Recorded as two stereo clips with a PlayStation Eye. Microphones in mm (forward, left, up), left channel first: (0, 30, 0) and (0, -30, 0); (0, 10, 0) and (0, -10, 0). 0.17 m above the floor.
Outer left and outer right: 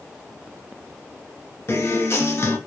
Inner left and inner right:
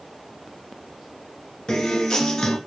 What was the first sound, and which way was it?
A guitar, 45° left (ahead or behind).